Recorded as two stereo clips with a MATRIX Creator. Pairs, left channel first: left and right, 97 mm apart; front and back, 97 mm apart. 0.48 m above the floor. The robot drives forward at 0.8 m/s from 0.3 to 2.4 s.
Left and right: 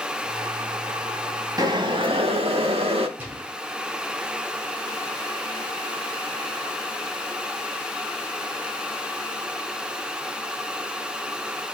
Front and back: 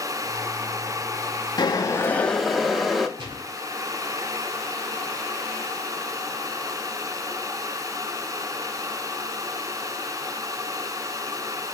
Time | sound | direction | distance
1.6 | boiling | 45° right | 0.9 m
3.2 | a gunshot | 160° right | 1.2 m